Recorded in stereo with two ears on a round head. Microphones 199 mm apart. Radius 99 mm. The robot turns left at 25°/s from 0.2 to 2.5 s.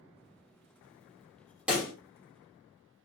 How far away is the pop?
About 1.0 m.